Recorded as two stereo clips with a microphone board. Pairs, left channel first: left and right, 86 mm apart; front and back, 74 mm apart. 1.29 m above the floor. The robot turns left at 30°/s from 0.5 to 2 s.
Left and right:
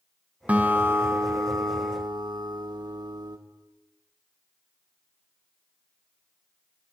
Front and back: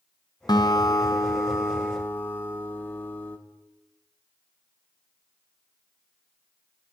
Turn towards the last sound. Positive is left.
turn(degrees=-65)